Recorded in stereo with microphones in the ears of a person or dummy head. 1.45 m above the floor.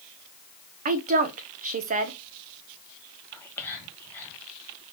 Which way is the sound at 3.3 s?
10° left (ahead or behind).